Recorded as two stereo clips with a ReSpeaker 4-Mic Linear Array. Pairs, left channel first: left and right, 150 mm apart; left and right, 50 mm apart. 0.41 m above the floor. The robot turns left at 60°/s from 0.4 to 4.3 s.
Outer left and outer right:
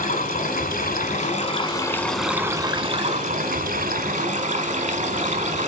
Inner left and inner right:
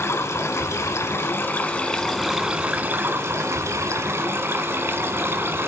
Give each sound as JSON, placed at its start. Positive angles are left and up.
{"t": 0.0, "sound": "running water", "azimuth_deg": 110, "distance_m": 1.4}